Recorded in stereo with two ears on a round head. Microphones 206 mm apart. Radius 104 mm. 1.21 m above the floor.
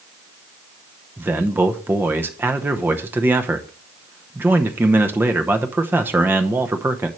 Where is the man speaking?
10° right (ahead or behind), 0.8 m.